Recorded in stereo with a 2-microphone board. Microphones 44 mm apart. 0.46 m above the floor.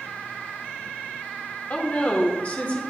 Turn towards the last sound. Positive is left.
turn(degrees=30)  # may be behind; listen again after turning